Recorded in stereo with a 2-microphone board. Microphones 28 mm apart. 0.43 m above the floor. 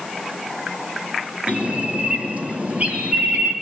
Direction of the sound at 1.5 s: 55° right (ahead or behind).